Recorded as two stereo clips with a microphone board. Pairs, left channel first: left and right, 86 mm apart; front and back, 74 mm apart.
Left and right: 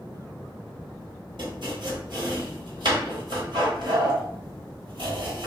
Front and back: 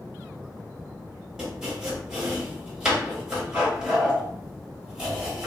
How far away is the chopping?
About 1.0 m.